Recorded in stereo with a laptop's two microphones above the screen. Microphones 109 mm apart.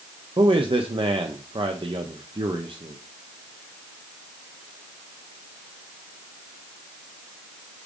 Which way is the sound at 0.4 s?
50° right (ahead or behind).